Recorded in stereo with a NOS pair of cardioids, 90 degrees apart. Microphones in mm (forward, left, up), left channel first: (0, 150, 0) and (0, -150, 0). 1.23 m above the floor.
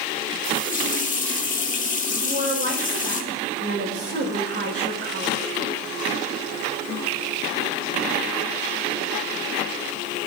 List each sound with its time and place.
0.4 s a running tap: 25° left, 1.8 m
2.2 s a woman speaking: 40° right, 5.5 m